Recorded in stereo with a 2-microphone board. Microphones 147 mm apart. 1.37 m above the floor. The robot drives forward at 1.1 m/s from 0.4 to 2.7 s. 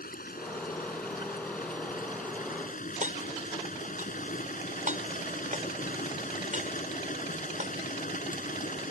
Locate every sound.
0.0 s running water: 80° left; by 8.9 s 65° left (ahead or behind)
3.0 s hammering: 60° right (ahead or behind)